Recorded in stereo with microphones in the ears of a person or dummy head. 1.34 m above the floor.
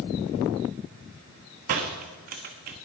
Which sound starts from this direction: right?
A door slam, at 1.7 s.